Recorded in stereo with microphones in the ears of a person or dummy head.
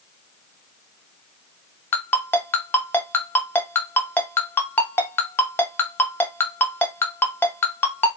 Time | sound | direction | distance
1.9 | a ringtone | 10° left (ahead or behind) | 0.8 m